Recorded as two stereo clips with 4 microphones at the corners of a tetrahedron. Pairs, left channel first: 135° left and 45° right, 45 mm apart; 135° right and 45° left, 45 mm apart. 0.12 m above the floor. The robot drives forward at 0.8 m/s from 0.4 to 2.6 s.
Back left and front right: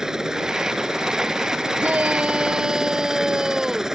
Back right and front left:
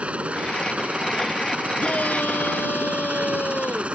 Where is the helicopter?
20° left.